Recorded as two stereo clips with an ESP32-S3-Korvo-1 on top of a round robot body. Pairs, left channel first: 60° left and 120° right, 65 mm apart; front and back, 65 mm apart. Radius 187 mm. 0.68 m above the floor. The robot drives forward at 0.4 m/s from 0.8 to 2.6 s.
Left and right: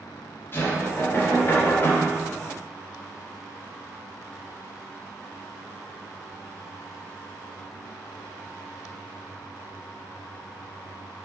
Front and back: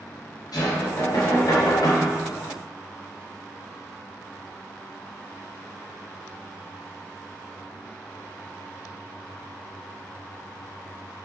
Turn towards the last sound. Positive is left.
turn(degrees=15)